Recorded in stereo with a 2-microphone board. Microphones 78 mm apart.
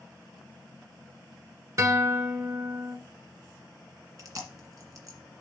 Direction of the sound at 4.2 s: 45° right (ahead or behind).